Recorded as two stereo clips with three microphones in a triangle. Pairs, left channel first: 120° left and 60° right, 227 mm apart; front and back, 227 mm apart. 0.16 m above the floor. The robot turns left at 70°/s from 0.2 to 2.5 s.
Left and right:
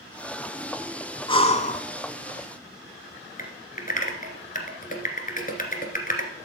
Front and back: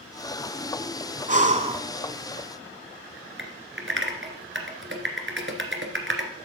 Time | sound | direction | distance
1.3 | breathing | 170° left | 0.7 m
3.4 | typing on a keyboard | 165° left | 1.7 m